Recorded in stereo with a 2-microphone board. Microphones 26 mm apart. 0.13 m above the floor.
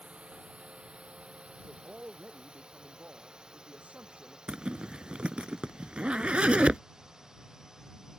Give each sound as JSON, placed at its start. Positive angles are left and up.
{"t": 0.0, "sound": "a drone", "side_deg": -55}
{"t": 1.6, "sound": "a man speaking", "side_deg": -75}
{"t": 4.5, "sound": "a zipper", "side_deg": -50}